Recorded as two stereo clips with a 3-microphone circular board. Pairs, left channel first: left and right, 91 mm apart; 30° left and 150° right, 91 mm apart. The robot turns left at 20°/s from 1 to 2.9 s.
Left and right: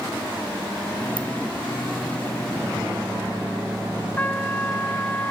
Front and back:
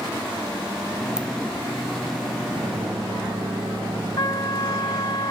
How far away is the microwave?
About 4.5 m.